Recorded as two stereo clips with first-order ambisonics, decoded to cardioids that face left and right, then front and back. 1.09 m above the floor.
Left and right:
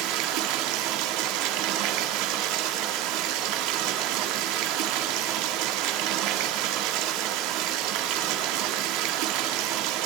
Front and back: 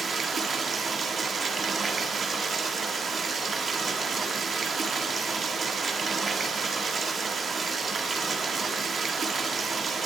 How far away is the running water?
About 1.5 m.